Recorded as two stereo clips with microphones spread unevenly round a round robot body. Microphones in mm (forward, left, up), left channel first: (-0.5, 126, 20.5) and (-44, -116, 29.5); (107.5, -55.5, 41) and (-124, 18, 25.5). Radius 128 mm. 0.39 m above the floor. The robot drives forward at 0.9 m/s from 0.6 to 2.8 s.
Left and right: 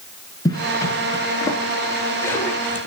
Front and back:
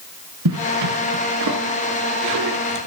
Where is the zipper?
155° left, 5.5 m; by 2.9 s 160° left, 7 m.